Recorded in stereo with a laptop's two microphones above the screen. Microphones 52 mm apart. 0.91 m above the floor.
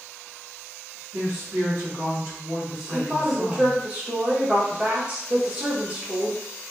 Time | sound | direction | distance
1.1 | a woman speaking | 70° right (ahead or behind) | 2 m
2.9 | a woman speaking | 20° right (ahead or behind) | 1.2 m